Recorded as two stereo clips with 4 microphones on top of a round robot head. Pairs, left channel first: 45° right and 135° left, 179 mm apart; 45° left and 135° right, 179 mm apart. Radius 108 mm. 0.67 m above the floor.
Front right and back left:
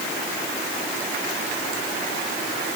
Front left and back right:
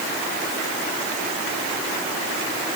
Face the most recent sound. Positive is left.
No sound to turn to.